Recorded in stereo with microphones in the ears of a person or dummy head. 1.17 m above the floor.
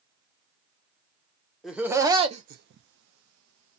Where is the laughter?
Centre (ahead or behind), 0.7 m; by 3.8 s 80° right, 0.8 m.